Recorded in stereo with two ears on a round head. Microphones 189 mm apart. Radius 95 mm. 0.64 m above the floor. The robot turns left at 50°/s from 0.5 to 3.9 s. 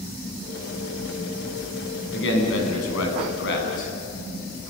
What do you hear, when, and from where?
2.1 s a man speaking: 125° left, 6 m; by 3.9 s 35° left, 6 m